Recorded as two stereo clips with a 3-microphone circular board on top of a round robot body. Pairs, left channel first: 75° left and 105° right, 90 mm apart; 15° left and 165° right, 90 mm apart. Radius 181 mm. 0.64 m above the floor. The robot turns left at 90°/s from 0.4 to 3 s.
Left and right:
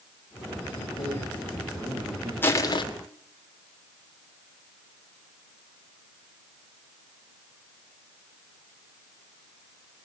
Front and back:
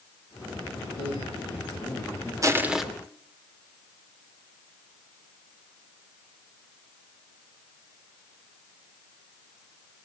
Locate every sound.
0.8 s a man speaking: 60° left, 8.5 m; by 2.3 s 80° right, 8.5 m
2.4 s crushing: 145° left, 2.5 m; by 2.8 s 105° left, 2.5 m